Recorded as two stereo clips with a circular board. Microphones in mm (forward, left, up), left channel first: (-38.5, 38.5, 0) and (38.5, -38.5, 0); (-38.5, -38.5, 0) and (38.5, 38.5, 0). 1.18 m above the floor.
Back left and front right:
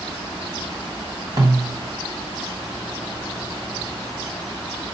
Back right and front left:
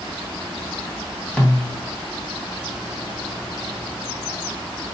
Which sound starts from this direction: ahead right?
A snare drum, at 1.4 s.